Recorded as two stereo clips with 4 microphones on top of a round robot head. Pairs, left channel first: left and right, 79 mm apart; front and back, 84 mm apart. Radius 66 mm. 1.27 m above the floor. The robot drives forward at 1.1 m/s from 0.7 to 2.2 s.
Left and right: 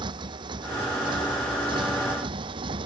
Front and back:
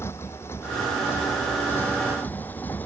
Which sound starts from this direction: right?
A motorcycle, at 0.0 s.